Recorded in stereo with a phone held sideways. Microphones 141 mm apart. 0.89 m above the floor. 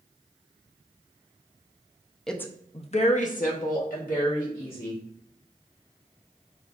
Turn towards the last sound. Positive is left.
turn(degrees=80)